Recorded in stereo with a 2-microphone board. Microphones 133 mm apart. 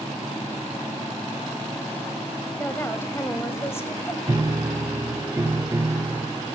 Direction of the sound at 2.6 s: 20° left (ahead or behind).